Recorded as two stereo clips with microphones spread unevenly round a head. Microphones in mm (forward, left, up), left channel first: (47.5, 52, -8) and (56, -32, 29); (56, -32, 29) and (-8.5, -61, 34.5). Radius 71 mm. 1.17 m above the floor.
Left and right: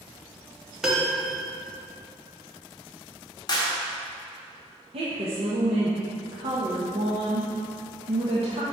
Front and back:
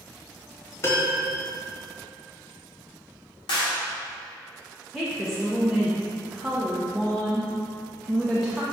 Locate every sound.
0.8 s a piano: 25° right, 1.3 m
3.5 s a clap: 55° left, 1.5 m
4.9 s a woman speaking: 65° right, 1.0 m